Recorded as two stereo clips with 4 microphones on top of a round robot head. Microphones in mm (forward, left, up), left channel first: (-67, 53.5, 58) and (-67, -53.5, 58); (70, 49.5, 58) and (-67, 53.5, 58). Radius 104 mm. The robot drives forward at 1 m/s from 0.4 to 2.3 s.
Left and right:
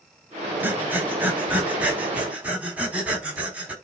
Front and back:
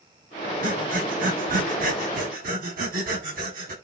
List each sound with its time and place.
0.6 s breathing: 160° right, 3 m; by 3.7 s 165° right, 5 m